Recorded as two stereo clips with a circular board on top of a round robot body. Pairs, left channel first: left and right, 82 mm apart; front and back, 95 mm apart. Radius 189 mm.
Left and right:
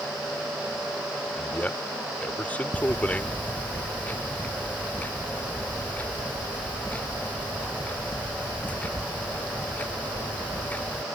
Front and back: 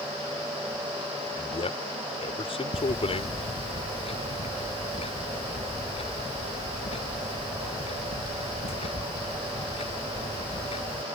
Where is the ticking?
20° left.